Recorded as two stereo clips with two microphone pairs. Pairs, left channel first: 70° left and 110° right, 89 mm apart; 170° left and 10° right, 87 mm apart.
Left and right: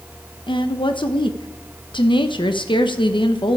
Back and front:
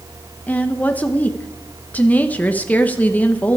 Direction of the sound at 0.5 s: 95° left.